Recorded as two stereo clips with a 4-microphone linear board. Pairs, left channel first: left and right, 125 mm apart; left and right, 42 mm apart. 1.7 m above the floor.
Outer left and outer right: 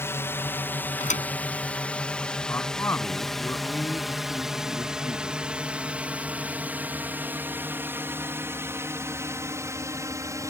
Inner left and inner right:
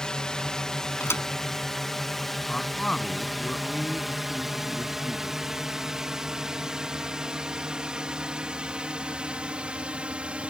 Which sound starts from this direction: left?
A thud, at 1.0 s.